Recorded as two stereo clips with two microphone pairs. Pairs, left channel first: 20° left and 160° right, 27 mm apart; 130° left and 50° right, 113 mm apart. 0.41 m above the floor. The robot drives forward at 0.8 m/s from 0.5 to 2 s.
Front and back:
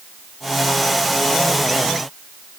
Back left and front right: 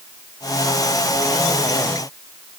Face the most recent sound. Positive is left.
No sound to turn to.